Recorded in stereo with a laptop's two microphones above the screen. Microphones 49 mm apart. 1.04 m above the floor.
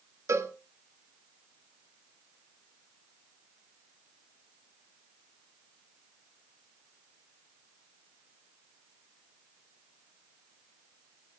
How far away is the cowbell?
About 1.2 m.